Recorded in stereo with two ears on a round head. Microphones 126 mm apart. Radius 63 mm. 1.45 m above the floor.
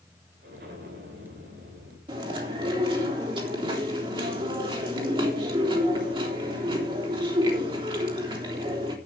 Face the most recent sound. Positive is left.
turn(degrees=-35)  # may be behind; listen again after turning